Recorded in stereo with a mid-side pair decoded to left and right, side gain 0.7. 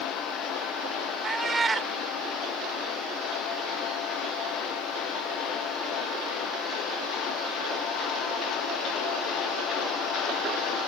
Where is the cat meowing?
20° right.